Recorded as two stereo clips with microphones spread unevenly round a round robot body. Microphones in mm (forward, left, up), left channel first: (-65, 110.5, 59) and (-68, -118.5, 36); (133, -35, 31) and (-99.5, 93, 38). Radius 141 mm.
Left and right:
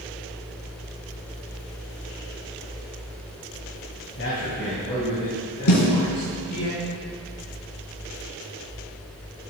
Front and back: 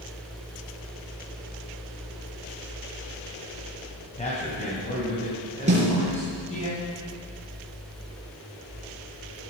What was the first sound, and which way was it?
A man speaking, 35° left.